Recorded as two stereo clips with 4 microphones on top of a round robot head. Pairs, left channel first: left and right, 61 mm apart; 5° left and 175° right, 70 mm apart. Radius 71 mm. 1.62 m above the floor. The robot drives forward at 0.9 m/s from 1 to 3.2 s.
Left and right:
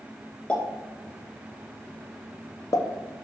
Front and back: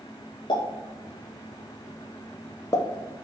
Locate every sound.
0.5 s a pop: 20° left, 2.5 m; by 2.9 s 60° left, 1.0 m